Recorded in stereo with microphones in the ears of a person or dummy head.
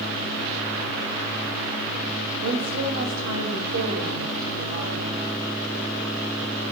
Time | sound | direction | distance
2.4 | a woman speaking | 70° right (ahead or behind) | 1.9 m